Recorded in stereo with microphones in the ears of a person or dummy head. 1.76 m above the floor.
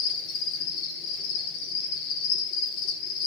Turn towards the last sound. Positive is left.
turn(degrees=45)  # may be behind; listen again after turning